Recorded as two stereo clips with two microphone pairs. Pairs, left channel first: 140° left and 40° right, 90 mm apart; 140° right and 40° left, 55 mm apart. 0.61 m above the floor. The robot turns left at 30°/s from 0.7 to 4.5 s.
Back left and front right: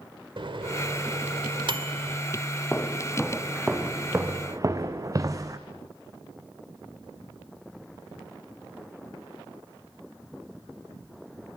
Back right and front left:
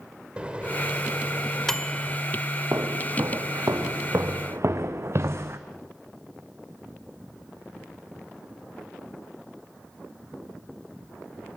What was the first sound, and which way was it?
A microwave, 30° right.